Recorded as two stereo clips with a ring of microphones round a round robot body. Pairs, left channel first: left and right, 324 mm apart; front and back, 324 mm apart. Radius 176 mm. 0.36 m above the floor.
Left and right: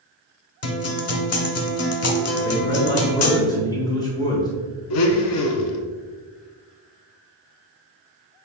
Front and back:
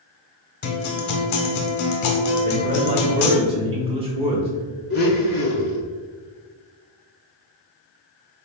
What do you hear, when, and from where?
0.6 s a guitar: 45° left, 0.8 m
2.4 s a man speaking: 145° left, 0.9 m
4.9 s a blender: 65° left, 0.7 m